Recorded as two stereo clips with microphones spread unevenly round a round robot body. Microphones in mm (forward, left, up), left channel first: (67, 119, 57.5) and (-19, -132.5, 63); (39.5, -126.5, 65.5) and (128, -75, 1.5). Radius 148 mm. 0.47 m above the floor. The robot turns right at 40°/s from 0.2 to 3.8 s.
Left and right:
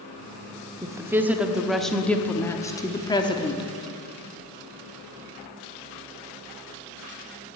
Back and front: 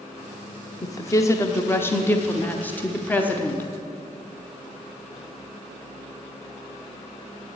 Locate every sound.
0.8 s a woman speaking: 55° right, 0.9 m; by 3.7 s 65° left, 0.9 m